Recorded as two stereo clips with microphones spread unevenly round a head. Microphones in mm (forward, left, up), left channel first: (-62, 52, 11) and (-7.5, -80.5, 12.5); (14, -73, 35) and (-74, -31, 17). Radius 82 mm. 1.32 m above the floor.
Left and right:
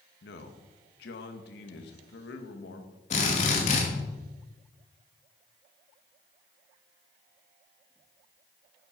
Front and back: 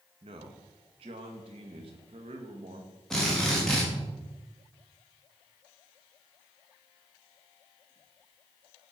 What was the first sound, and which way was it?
A man speaking, 110° left.